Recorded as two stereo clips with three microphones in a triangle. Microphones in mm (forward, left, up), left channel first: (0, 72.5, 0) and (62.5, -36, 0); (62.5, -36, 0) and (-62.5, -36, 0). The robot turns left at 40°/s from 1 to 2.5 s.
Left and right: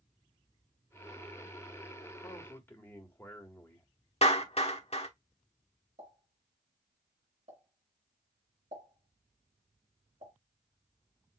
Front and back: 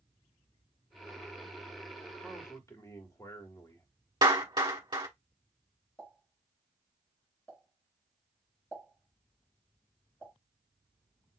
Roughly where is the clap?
Behind left.